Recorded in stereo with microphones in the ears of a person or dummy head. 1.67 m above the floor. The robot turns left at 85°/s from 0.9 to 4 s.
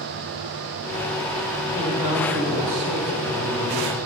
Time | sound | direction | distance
1.7 | a man speaking | 15° left | 9 m